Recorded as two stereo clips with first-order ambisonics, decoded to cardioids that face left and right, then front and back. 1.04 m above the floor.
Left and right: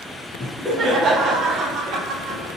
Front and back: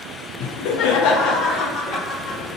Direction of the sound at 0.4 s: Straight ahead.